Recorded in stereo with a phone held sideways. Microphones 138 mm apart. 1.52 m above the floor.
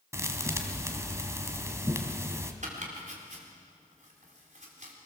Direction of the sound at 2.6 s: 55° right (ahead or behind).